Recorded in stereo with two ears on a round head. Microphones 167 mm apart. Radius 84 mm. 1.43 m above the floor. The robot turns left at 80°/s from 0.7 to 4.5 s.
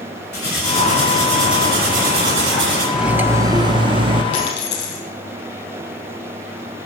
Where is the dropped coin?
75° left (ahead or behind), 4.5 m; by 5.0 s 65° left (ahead or behind), 4.5 m.